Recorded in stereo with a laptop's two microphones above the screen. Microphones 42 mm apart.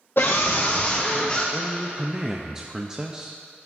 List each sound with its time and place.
0.2 s a scream: 60° left (ahead or behind), 0.5 m; by 1.4 s 25° left (ahead or behind), 1.2 m
1.5 s a woman speaking: 15° right (ahead or behind), 0.6 m